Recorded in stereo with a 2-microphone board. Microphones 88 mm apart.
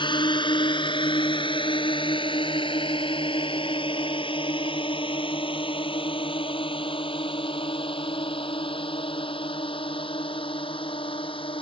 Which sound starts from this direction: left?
A drone, at 0.0 s.